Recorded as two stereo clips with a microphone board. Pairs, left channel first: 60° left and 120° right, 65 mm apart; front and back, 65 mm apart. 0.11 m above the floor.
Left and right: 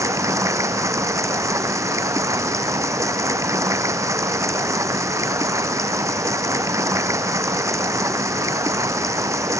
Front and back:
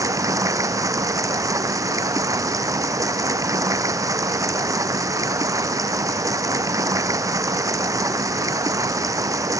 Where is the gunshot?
No gunshot in this recording.